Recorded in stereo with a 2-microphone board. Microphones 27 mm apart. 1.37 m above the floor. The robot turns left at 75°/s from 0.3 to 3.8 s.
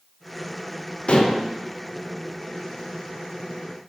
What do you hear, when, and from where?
1.1 s dishes clattering: 40° left (ahead or behind), 0.7 m; by 1.5 s 60° left (ahead or behind), 0.7 m